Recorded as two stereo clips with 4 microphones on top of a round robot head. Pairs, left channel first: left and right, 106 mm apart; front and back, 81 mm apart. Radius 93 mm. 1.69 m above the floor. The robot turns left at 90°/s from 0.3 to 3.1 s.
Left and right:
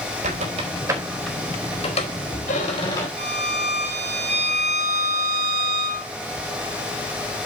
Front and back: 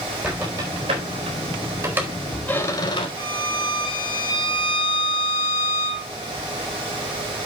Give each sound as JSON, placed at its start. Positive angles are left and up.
{"t": 0.2, "sound": "a squeak", "azimuth_deg": -100, "distance_m": 4.0}
{"t": 3.2, "sound": "a violin", "azimuth_deg": -55, "distance_m": 0.8}